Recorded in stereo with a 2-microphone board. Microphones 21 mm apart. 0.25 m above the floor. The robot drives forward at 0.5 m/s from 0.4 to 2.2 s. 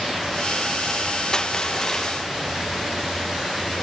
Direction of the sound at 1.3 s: 35° left (ahead or behind).